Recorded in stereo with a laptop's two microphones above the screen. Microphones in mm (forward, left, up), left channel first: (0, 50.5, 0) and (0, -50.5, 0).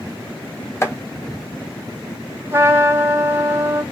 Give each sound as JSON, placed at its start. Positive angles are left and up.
{"t": 0.8, "sound": "chopping", "side_deg": 30, "distance_m": 1.2}
{"t": 2.5, "sound": "a trumpet", "side_deg": -25, "distance_m": 2.0}